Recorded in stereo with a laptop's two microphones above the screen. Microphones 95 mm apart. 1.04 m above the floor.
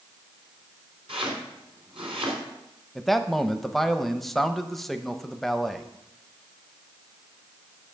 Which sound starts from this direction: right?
Chopping, at 1.1 s.